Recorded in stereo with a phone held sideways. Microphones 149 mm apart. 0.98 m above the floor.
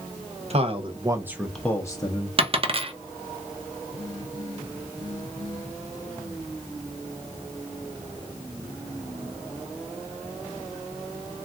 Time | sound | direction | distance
0.5 | a man speaking | 45° right (ahead or behind) | 0.8 m
2.4 | a dropped coin | 40° right (ahead or behind) | 0.6 m